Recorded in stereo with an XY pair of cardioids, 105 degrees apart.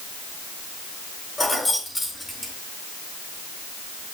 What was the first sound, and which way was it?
Keys jangling, 25° left.